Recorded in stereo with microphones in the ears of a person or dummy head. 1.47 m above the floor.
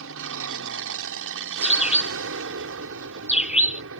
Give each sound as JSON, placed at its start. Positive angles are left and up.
{"t": 0.0, "sound": "an aircraft", "side_deg": -70}
{"t": 1.6, "sound": "a bird", "side_deg": -5}